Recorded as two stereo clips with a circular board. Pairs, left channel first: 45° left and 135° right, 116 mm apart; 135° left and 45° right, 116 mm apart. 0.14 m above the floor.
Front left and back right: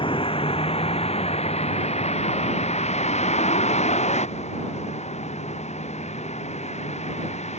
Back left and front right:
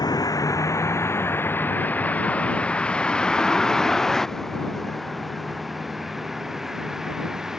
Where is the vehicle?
80° left; by 7.6 s 40° left.